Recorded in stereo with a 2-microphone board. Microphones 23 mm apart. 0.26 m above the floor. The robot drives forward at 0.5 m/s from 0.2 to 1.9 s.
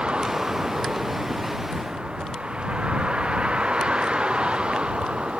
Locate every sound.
0.0 s a vehicle: 50° right (ahead or behind)